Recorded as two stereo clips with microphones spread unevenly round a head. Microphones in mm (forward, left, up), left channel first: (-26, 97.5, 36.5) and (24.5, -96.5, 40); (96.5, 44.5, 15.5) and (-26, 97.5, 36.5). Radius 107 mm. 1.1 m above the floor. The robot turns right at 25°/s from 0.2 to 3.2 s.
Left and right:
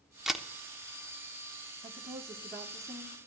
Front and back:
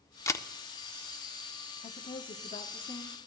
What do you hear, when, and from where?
0.3 s a camera shutter: 10° left, 0.8 m; by 0.5 s 15° left, 0.8 m
1.8 s a woman speaking: 10° right, 1.0 m; by 3.2 s 20° left, 1.0 m